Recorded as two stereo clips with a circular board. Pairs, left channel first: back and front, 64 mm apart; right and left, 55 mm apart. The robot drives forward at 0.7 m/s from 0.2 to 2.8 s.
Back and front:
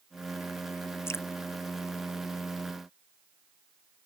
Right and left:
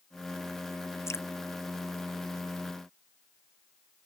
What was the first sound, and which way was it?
Dripping, 130° right.